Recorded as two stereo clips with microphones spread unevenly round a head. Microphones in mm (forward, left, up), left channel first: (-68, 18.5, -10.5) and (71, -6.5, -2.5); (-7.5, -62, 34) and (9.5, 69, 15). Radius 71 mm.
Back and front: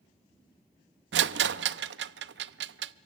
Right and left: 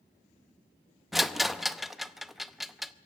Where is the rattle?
5° right, 0.7 m.